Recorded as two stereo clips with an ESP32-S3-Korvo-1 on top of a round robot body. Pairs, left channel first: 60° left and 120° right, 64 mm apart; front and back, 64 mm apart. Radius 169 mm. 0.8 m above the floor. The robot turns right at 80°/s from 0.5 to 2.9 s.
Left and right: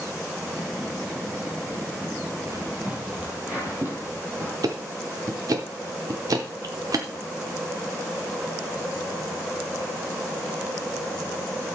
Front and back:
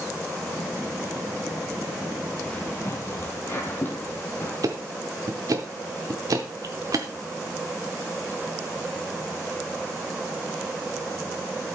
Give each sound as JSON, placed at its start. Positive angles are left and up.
{"t": 2.5, "sound": "footsteps", "azimuth_deg": -70, "distance_m": 1.4}
{"t": 4.6, "sound": "ticking", "azimuth_deg": -150, "distance_m": 0.6}